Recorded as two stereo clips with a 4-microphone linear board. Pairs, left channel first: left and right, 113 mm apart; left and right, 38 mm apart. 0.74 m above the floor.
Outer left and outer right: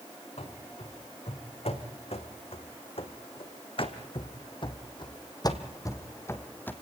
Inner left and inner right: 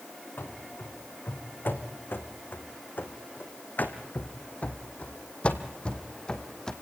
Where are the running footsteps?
80° left, 4 m; by 6.7 s 20° left (ahead or behind), 2 m.